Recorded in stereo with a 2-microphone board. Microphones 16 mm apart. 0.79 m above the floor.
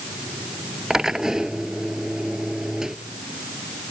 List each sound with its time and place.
0.9 s a drill: 35° right (ahead or behind)